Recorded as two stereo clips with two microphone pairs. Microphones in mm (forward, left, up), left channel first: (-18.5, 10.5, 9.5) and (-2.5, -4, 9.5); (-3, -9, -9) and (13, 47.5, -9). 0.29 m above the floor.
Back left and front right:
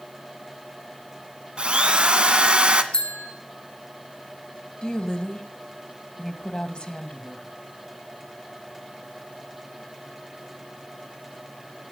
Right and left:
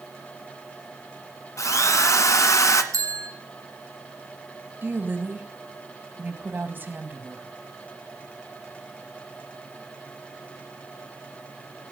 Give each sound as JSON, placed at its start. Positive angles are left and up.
{"t": 1.6, "sound": "a drill", "azimuth_deg": -85, "distance_m": 1.6}
{"t": 2.9, "sound": "a bell", "azimuth_deg": 95, "distance_m": 3.0}
{"t": 4.8, "sound": "a woman speaking", "azimuth_deg": 120, "distance_m": 2.0}